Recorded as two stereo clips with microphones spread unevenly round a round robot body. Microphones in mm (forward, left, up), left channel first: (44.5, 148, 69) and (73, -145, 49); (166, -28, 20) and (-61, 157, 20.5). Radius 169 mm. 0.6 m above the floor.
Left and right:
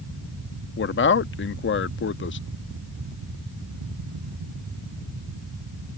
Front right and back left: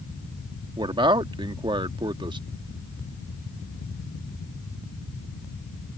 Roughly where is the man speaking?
Left.